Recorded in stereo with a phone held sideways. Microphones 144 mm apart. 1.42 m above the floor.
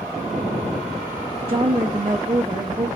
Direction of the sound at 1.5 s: 40° right (ahead or behind).